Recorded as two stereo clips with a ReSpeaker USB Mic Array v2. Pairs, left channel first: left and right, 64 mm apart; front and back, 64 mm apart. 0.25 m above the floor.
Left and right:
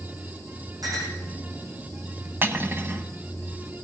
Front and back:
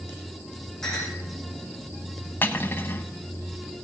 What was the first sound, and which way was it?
A clink, 85° right.